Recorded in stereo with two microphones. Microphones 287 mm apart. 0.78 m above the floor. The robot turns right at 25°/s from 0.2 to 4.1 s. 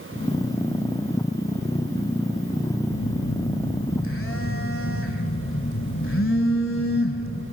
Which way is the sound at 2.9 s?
105° left.